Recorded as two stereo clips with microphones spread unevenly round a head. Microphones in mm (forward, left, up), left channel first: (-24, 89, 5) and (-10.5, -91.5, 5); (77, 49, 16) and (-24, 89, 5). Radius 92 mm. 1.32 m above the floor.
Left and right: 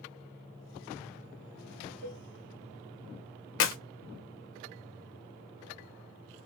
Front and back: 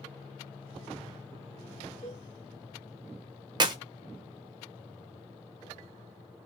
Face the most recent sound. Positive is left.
turn(degrees=105)